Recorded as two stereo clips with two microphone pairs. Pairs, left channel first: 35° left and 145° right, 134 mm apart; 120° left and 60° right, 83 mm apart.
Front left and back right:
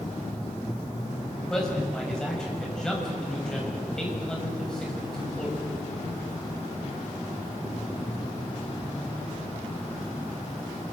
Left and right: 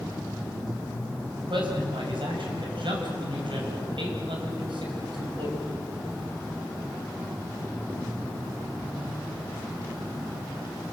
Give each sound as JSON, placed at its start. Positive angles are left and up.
{"t": 1.5, "sound": "a man speaking", "azimuth_deg": -50, "distance_m": 6.5}